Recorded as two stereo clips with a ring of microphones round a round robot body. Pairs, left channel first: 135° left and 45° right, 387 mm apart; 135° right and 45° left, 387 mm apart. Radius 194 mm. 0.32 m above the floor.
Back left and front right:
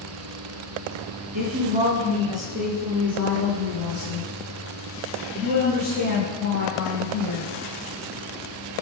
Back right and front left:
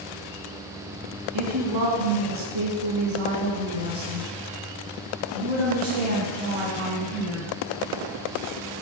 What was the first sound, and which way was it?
A woman speaking, 25° left.